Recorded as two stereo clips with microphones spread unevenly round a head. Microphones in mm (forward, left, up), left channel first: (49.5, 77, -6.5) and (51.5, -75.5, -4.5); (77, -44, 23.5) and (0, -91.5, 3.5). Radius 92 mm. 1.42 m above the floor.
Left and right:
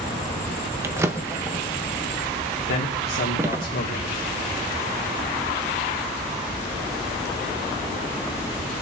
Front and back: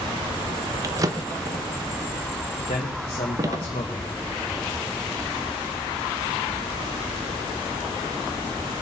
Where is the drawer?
135° right, 0.6 m.